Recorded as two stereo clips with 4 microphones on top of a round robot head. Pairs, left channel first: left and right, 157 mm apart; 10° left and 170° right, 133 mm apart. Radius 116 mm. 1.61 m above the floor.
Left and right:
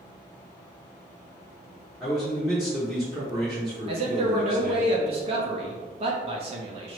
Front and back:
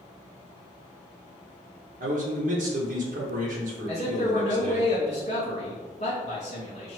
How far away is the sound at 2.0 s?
About 0.9 m.